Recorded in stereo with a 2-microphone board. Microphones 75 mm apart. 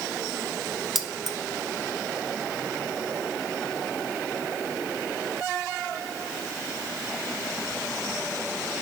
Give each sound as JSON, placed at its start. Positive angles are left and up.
{"t": 0.9, "sound": "keys jangling", "side_deg": -5, "distance_m": 1.1}